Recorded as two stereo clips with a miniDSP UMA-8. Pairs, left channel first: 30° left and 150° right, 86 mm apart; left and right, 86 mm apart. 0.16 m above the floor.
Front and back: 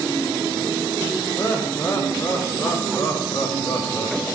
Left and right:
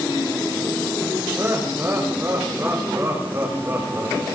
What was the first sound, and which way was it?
Laughter, 30° right.